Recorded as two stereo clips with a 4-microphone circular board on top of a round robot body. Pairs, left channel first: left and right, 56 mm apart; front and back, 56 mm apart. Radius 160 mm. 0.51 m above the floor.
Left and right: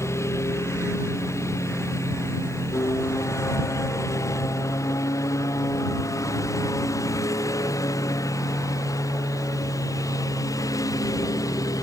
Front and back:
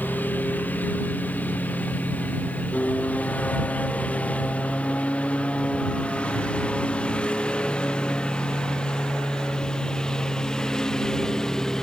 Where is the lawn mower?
60° left; by 11.8 s 80° left.